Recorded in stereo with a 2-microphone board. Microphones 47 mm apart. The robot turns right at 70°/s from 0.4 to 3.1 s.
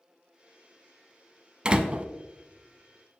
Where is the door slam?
25° right (ahead or behind), 0.7 m; by 2.0 s 30° right (ahead or behind), 0.7 m.